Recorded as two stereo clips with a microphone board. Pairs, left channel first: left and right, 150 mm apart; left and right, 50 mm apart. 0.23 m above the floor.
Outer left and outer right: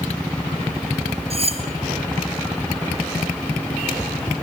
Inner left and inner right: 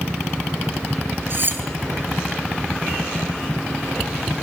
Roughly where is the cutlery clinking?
Right.